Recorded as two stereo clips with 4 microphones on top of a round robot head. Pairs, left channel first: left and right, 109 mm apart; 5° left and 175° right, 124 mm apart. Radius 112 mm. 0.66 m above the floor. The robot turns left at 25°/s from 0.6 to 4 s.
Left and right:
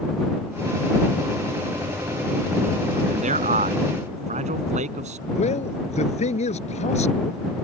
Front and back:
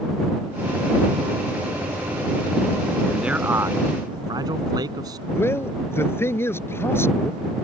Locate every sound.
3.1 s a man speaking: 85° right; by 5.2 s 110° right
5.3 s a man speaking: 75° left